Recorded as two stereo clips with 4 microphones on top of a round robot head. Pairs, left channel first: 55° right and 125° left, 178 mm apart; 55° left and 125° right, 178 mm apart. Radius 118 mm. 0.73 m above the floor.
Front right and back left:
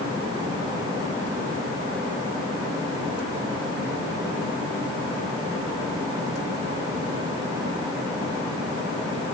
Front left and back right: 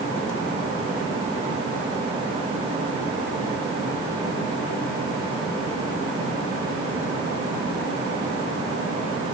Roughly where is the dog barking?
I don't hear a dog barking.